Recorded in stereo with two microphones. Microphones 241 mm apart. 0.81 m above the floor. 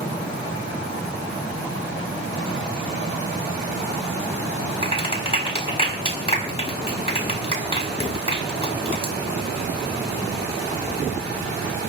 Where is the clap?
25° left (ahead or behind), 5 m.